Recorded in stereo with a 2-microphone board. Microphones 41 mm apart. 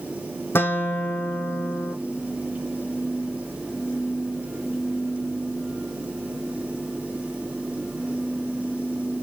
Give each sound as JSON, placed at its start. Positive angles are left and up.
{"t": 0.6, "sound": "a guitar", "side_deg": 75, "distance_m": 1.5}